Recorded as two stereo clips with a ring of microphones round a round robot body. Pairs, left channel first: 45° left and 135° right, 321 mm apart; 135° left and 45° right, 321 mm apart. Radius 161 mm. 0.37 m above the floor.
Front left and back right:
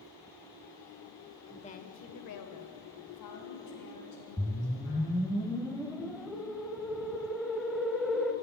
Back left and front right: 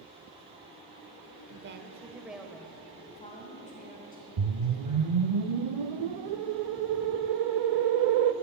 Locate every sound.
1.5 s a woman speaking: 35° right, 1.0 m; by 5.1 s 75° left, 4.5 m
4.4 s a whoosh: 45° right, 0.6 m